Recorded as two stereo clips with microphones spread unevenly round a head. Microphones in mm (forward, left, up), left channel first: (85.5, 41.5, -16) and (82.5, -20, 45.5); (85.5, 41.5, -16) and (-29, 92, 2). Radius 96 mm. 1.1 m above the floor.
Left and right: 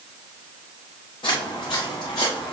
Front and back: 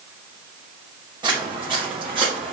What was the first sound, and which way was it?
Footsteps, 110° left.